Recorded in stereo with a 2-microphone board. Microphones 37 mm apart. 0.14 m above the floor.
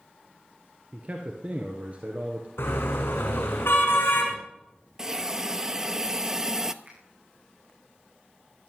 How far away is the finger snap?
About 7.5 m.